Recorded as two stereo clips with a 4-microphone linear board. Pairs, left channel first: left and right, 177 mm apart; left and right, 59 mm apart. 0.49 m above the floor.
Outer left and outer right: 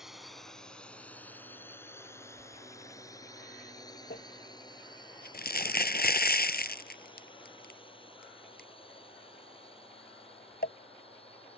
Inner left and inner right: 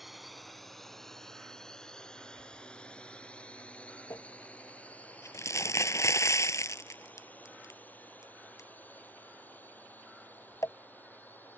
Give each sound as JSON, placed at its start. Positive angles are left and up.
{"t": 0.0, "sound": "a drone", "side_deg": -5}
{"t": 4.1, "sound": "crumpling", "side_deg": 60}